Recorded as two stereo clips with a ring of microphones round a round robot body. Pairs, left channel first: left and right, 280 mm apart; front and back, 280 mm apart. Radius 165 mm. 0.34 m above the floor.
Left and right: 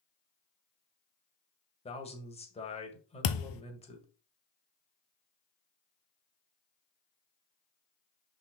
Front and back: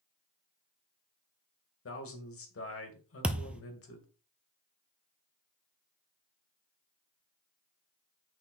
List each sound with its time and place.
1.9 s a man speaking: 25° left, 2 m
3.2 s a thud: 95° left, 0.6 m